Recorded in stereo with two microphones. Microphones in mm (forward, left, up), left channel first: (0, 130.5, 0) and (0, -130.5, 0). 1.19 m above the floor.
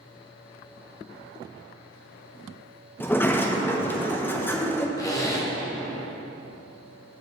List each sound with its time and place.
3.0 s a sliding door: 10° left (ahead or behind), 0.6 m
5.0 s a zipper: 10° left (ahead or behind), 1.1 m